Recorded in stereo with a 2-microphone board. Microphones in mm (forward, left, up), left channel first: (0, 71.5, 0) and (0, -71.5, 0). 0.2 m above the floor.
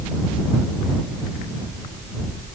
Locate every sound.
Only background noise.